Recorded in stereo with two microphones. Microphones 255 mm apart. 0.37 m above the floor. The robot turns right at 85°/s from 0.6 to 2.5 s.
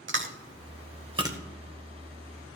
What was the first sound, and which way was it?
Chewing, 50° right (ahead or behind).